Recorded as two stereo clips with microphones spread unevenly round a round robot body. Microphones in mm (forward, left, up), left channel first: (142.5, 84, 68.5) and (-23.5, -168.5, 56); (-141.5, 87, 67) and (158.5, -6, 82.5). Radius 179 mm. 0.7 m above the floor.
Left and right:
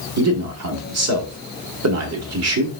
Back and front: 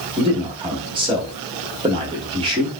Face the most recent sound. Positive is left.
turn(degrees=-90)